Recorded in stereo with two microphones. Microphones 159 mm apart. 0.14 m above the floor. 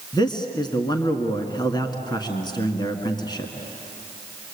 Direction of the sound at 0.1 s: 25° left (ahead or behind).